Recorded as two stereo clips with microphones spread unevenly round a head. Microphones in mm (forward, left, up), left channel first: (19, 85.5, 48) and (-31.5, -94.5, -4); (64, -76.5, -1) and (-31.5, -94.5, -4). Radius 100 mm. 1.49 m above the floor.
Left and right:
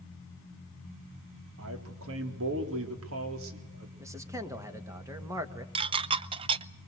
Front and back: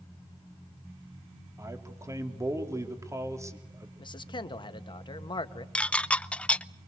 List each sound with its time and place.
1.6 s a man speaking: 110° right, 3.5 m
4.0 s a man speaking: 30° right, 1.8 m
5.8 s dishes clattering: 40° right, 0.5 m